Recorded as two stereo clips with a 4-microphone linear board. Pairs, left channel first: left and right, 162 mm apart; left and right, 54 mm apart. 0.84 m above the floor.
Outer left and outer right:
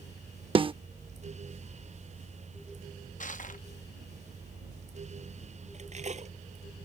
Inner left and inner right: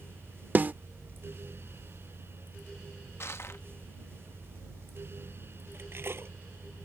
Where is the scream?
I don't hear a scream.